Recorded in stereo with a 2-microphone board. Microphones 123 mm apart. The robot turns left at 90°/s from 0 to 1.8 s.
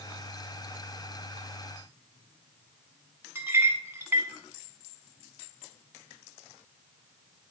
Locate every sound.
3.4 s a clink: 20° right (ahead or behind), 0.8 m